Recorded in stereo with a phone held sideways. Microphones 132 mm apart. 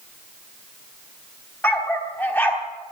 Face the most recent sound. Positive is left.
turn(degrees=15)  # may be behind; listen again after turning